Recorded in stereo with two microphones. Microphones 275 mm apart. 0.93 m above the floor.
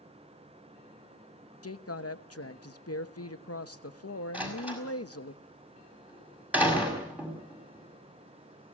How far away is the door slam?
About 5.5 m.